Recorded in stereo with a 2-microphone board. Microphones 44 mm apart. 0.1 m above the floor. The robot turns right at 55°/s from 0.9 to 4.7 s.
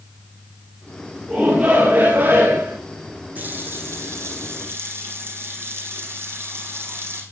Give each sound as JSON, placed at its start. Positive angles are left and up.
{"t": 1.3, "sound": "a shout", "azimuth_deg": 180, "distance_m": 7.5}
{"t": 3.4, "sound": "a running tap", "azimuth_deg": -140, "distance_m": 3.0}